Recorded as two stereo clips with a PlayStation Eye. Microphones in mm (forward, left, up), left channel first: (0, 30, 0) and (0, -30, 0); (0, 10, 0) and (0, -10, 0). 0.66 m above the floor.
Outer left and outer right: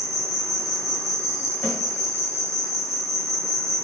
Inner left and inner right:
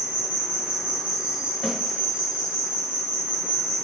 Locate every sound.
0.0 s an insect: 75° right (ahead or behind), 1.0 m
1.6 s a snare drum: 10° left (ahead or behind), 1.5 m